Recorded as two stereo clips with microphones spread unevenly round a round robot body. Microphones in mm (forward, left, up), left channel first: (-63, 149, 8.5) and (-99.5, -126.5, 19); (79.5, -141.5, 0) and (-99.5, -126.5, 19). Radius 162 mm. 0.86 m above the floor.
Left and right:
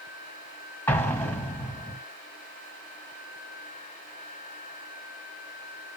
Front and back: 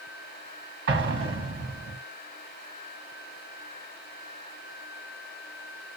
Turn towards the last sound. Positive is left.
turn(degrees=160)